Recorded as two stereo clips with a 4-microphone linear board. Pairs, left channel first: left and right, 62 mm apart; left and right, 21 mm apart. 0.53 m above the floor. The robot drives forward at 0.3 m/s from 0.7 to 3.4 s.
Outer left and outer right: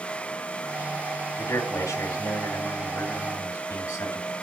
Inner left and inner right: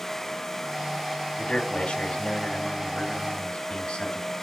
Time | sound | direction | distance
1.4 | a man speaking | 45° left (ahead or behind) | 2.5 m